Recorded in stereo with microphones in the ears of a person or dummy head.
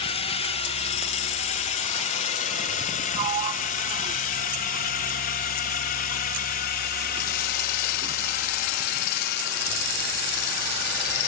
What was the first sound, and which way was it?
A drone, 30° left (ahead or behind).